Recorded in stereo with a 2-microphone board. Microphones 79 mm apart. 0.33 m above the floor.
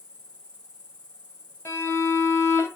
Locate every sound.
0.0 s an insect: 15° left (ahead or behind), 3 m
1.6 s a violin: 35° left (ahead or behind), 1.5 m